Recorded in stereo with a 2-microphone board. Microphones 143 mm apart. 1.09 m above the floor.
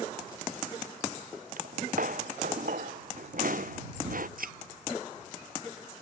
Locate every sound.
1.6 s footsteps: 70° right (ahead or behind); by 4.3 s 75° right (ahead or behind)
4.4 s a thud: 80° right